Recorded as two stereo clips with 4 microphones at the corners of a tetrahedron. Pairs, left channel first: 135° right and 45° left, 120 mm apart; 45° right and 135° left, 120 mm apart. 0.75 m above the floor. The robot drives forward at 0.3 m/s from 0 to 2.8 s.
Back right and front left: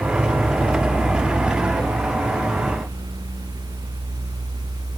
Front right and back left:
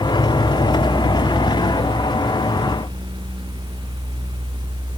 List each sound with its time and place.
Only background noise.